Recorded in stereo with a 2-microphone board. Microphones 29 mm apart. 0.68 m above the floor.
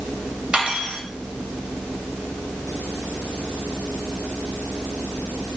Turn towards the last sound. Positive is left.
turn(degrees=-40)  # may be behind; listen again after turning